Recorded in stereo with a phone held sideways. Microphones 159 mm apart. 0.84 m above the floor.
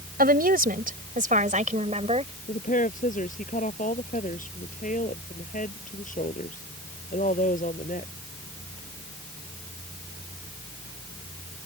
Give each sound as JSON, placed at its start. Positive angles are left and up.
{"t": 0.2, "sound": "a woman speaking", "side_deg": -70}
{"t": 2.5, "sound": "a woman speaking", "side_deg": 55}